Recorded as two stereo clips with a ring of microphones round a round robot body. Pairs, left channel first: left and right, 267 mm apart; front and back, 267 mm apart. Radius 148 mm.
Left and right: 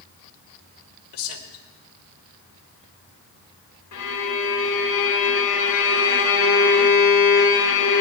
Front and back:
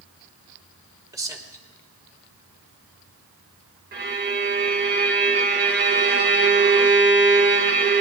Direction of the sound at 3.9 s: 130° left.